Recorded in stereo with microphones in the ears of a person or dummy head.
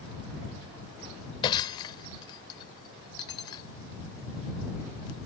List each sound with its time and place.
1.4 s breaking glass: 30° left (ahead or behind)